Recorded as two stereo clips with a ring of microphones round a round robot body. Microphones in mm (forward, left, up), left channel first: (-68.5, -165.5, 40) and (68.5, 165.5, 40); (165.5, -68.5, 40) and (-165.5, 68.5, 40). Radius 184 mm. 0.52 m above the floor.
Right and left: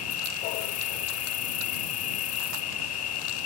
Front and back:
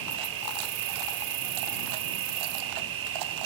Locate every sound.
0.0 s an insect: 165° right